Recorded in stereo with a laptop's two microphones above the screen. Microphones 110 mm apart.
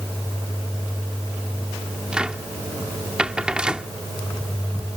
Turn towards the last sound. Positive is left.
turn(degrees=-10)  # may be behind; listen again after turning